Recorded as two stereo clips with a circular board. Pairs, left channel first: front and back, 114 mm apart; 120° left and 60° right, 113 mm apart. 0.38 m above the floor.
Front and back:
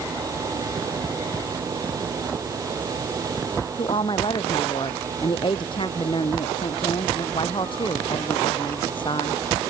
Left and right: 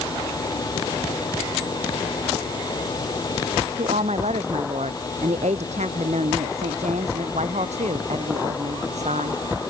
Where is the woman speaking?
45° right.